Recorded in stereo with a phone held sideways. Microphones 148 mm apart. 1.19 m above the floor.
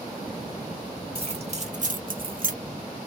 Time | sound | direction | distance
1.1 | keys jangling | 40° right (ahead or behind) | 1.6 m